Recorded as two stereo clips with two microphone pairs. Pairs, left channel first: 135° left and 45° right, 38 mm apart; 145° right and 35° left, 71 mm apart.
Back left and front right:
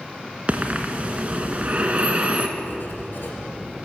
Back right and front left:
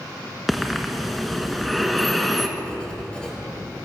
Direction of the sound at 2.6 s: 140° left.